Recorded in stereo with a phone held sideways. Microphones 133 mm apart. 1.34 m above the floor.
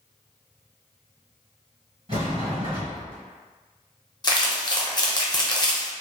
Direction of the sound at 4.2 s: 30° left (ahead or behind).